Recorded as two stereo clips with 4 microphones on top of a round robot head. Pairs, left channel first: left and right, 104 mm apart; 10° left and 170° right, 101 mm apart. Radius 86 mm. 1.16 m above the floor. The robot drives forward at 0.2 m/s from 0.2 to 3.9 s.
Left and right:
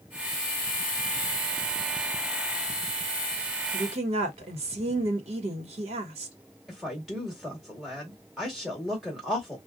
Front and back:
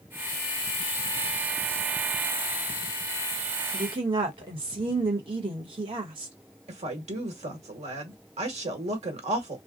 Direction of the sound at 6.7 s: Straight behind.